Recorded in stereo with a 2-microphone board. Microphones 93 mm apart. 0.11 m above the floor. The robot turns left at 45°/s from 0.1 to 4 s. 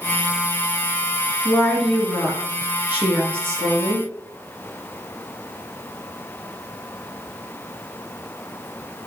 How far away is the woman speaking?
About 1.5 m.